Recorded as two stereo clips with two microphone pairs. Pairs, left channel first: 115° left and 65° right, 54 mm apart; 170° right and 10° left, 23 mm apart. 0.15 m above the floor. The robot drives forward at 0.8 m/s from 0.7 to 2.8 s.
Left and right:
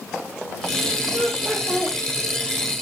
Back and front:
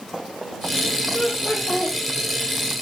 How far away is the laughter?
About 6.5 m.